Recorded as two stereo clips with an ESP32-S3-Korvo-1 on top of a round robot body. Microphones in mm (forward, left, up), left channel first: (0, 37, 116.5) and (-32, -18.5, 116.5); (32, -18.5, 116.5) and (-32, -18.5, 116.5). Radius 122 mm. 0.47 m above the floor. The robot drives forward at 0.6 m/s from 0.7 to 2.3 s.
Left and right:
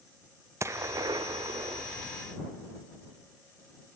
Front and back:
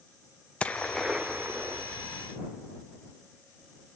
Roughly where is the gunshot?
Right.